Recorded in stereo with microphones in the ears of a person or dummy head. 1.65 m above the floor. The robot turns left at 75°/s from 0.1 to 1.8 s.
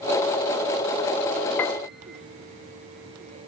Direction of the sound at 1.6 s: 10° left (ahead or behind).